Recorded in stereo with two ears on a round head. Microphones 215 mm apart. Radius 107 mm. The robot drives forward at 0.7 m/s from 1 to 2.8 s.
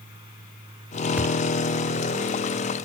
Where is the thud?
5° right (ahead or behind).